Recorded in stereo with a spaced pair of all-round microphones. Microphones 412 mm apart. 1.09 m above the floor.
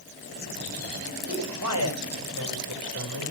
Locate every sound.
1.2 s a man speaking: 40° right (ahead or behind), 7 m